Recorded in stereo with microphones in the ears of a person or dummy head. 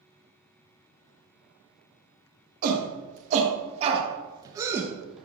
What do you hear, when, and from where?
2.6 s a shout: 50° right (ahead or behind), 1.7 m; by 5.2 s centre (ahead or behind), 0.9 m